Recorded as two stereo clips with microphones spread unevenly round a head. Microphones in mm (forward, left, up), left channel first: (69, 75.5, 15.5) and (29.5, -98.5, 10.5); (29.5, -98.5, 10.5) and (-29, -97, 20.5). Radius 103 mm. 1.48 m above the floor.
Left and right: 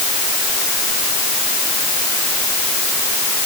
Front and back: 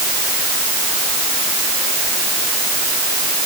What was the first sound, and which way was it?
Only background noise.